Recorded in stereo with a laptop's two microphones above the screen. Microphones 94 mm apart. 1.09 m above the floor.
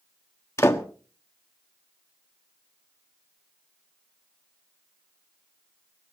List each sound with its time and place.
0.6 s a door slam: 30° left (ahead or behind), 1.4 m